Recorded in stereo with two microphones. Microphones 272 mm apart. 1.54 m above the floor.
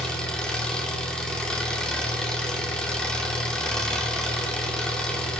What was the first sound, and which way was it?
An engine running, 5° left (ahead or behind).